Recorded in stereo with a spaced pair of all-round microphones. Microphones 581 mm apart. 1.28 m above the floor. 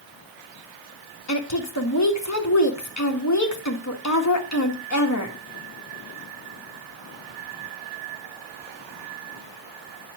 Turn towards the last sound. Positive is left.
turn(degrees=30)  # may be behind; listen again after turning